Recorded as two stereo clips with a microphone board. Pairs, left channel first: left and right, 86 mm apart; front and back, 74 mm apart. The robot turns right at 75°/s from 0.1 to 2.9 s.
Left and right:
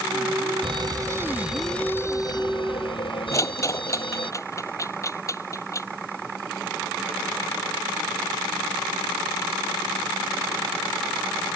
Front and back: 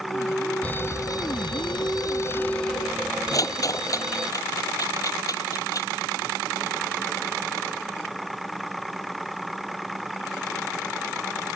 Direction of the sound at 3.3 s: 40° left.